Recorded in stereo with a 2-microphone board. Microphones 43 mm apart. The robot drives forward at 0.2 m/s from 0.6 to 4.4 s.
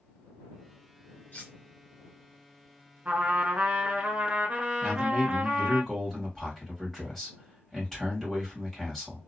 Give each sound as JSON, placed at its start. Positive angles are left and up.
{"t": 1.3, "sound": "cutlery clinking", "side_deg": 35, "distance_m": 1.5}
{"t": 3.0, "sound": "a trumpet", "side_deg": -35, "distance_m": 0.8}
{"t": 4.8, "sound": "a man speaking", "side_deg": 10, "distance_m": 1.8}